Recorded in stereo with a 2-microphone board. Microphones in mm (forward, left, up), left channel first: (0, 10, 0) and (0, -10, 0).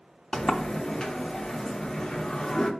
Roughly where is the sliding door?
Left.